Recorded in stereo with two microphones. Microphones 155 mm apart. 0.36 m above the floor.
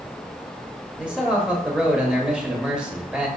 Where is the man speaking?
5° right (ahead or behind), 1.0 m.